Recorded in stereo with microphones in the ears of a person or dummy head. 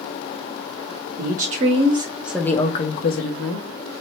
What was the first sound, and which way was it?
A woman speaking, 50° right (ahead or behind).